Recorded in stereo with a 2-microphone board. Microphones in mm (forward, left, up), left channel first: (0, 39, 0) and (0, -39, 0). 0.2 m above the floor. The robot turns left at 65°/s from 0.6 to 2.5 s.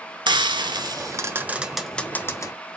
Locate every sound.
0.3 s frying: 70° right (ahead or behind), 0.8 m; by 2.5 s 45° left (ahead or behind), 0.8 m